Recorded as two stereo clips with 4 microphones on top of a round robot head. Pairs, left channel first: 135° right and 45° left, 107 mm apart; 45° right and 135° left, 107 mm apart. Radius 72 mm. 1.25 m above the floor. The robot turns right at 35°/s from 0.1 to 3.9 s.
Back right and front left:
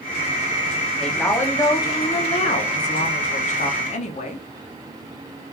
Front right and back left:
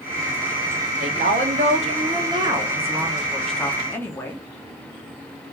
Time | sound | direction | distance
1.0 | a woman speaking | 140° left | 0.7 m